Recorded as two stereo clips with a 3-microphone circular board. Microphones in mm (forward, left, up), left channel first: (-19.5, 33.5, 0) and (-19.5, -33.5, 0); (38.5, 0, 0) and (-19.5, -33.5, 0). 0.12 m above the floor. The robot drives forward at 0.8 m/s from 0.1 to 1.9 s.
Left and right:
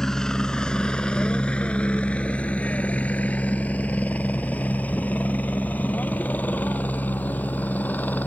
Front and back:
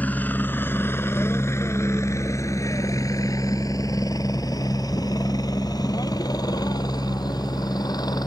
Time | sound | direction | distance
0.0 | a helicopter | 15° left | ?